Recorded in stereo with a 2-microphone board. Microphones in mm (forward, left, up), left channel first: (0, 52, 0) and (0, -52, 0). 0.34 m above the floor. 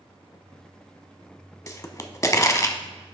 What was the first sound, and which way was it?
A pop, 30° left (ahead or behind).